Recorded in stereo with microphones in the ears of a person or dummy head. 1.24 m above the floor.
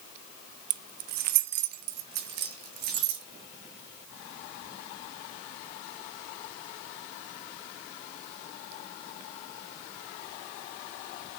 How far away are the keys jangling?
About 0.5 m.